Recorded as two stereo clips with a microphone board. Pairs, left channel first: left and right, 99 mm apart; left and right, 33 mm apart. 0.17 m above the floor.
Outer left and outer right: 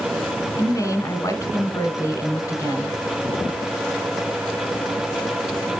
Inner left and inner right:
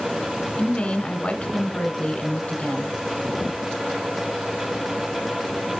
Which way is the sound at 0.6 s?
30° left (ahead or behind).